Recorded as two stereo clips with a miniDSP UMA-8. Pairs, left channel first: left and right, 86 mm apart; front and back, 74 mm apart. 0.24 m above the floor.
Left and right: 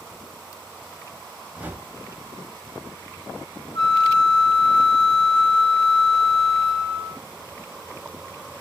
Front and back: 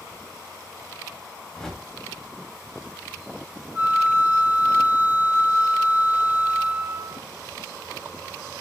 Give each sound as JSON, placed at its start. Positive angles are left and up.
{"t": 1.5, "sound": "a whoosh", "azimuth_deg": -75, "distance_m": 0.5}
{"t": 3.8, "sound": "a flute", "azimuth_deg": 120, "distance_m": 0.8}